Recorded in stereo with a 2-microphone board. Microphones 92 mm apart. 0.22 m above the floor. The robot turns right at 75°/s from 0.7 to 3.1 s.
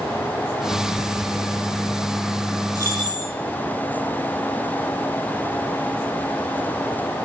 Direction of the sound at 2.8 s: 35° right (ahead or behind).